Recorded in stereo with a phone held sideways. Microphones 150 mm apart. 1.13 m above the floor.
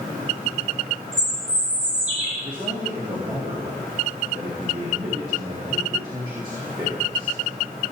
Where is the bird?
45° right (ahead or behind), 6 m.